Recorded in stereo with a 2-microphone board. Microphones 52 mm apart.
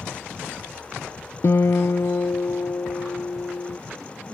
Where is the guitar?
60° left (ahead or behind).